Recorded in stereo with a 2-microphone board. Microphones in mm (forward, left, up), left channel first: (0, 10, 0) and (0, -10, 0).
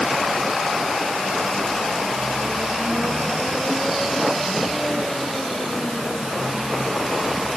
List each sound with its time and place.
Only background noise.